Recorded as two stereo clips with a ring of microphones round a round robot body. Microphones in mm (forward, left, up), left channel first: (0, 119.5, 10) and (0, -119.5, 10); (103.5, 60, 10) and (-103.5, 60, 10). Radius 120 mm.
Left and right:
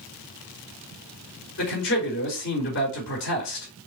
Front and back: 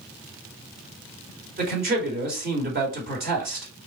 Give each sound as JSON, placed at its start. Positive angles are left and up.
{"t": 1.6, "sound": "a man speaking", "azimuth_deg": 130, "distance_m": 3.0}